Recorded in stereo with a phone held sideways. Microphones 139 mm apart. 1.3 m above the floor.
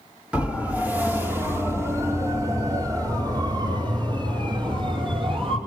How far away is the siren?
About 4 m.